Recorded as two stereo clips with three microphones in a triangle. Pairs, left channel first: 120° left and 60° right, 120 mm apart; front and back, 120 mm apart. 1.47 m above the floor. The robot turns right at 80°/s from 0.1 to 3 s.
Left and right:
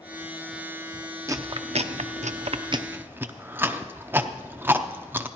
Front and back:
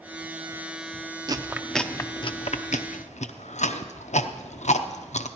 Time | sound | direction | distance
1.3 | chewing | 125° right | 0.6 m